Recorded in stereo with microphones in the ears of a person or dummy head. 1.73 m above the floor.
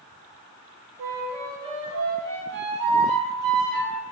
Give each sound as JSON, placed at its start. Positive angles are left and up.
{"t": 1.0, "sound": "a flute", "side_deg": -40, "distance_m": 0.6}